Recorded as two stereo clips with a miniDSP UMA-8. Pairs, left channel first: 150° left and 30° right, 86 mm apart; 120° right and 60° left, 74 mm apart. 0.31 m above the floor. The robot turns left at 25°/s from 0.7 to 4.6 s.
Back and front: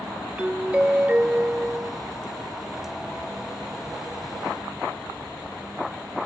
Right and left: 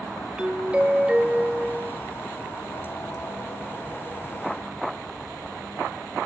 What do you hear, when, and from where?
0.4 s a doorbell: 20° left; by 2.0 s 10° right